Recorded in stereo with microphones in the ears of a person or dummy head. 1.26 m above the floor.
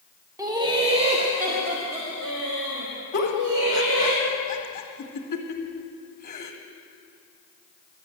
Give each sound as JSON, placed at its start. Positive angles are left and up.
{"t": 0.4, "sound": "laughter", "side_deg": -15, "distance_m": 1.2}
{"t": 3.1, "sound": "a giggle", "side_deg": 45, "distance_m": 1.4}